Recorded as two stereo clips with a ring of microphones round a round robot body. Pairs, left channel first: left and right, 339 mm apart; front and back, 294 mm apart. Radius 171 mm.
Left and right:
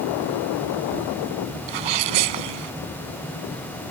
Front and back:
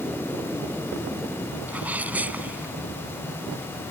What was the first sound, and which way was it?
A sneeze, 95° right.